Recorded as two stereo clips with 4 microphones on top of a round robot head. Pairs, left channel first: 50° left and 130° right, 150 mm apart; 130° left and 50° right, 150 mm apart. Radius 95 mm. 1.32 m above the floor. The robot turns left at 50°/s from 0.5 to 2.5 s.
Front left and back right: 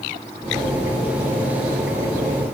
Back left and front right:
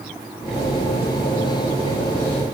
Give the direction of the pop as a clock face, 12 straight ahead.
I don't hear a pop.